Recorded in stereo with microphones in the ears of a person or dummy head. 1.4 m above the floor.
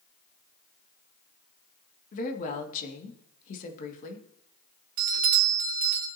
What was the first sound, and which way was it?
A woman speaking, 45° left (ahead or behind).